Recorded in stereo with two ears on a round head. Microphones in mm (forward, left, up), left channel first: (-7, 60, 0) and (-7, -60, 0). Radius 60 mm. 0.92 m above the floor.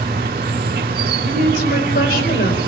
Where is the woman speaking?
80° left, 4.5 m.